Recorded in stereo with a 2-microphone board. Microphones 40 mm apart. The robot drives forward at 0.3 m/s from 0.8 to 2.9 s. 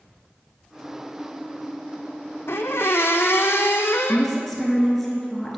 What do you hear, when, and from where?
2.5 s a squeak: 80° left, 0.7 m
4.1 s a woman speaking: 5° left (ahead or behind), 1.7 m